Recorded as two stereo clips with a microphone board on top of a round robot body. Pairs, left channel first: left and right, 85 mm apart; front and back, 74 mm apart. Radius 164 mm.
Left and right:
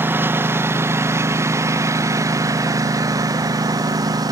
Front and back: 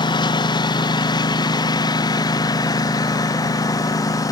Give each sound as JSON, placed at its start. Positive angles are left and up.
{"t": 0.0, "sound": "a lawn mower", "azimuth_deg": -25}